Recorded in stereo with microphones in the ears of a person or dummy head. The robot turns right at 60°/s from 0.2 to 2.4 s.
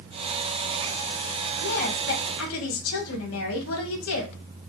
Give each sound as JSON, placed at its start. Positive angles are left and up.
{"t": 1.6, "sound": "a woman speaking", "azimuth_deg": 30, "distance_m": 1.4}